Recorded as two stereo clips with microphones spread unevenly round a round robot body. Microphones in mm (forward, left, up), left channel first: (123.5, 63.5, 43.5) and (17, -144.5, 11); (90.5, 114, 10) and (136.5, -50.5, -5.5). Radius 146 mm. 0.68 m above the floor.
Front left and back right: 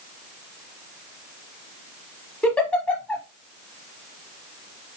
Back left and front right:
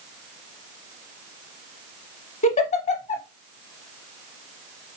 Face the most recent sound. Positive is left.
turn(degrees=140)